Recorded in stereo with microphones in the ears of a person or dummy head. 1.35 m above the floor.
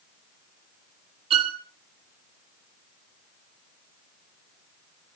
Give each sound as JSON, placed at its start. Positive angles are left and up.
{"t": 1.3, "sound": "a violin", "side_deg": -35, "distance_m": 2.0}